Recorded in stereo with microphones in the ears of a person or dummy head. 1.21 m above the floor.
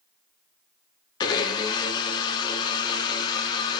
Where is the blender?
25° left (ahead or behind), 0.6 m.